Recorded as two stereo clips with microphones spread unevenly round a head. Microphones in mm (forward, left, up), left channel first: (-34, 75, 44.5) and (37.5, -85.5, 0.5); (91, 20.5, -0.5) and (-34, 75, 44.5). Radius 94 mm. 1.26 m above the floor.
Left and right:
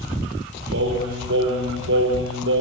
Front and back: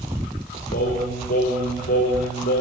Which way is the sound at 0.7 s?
50° right.